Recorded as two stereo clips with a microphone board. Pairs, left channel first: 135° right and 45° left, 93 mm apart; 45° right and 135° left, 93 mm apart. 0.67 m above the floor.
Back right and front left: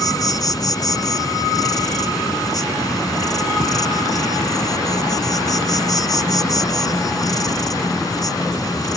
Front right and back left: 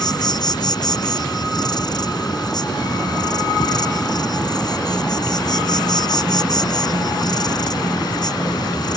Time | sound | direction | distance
0.0 | an insect | 85° right | ?